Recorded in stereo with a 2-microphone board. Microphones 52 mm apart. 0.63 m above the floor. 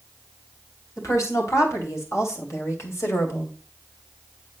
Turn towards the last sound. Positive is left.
turn(degrees=55)  # may be behind; listen again after turning